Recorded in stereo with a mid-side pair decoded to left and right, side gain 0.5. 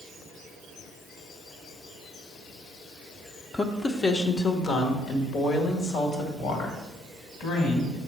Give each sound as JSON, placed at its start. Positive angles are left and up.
{"t": 3.5, "sound": "a woman speaking", "azimuth_deg": 20, "distance_m": 0.7}